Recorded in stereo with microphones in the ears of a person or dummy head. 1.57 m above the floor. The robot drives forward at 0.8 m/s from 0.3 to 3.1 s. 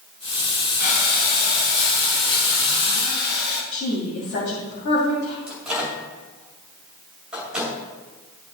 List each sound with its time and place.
0.8 s breathing: 60° left (ahead or behind), 3.5 m; by 3.6 s 70° left (ahead or behind), 3 m
3.7 s a woman speaking: 60° left (ahead or behind), 2 m
5.5 s a microwave: 5° right (ahead or behind), 2.5 m